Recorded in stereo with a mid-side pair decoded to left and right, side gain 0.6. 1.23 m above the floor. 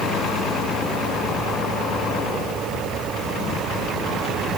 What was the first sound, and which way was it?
Only background noise.